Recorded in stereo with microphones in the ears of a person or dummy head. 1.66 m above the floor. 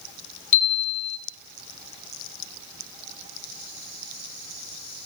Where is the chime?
35° left (ahead or behind), 1.5 m.